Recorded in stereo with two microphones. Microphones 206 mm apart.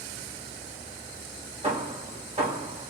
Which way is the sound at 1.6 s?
30° right (ahead or behind).